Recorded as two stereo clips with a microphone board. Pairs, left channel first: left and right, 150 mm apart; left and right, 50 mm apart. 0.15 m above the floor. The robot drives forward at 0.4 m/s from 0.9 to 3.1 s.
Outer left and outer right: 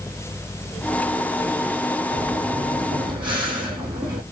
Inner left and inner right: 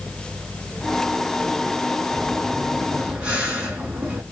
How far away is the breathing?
About 2.5 m.